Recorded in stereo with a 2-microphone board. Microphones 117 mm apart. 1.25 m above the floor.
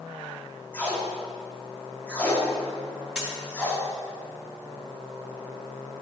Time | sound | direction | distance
0.7 | tape being pulled | 15° left (ahead or behind) | 1.2 m
3.1 | a dropped coin | 5° right (ahead or behind) | 1.1 m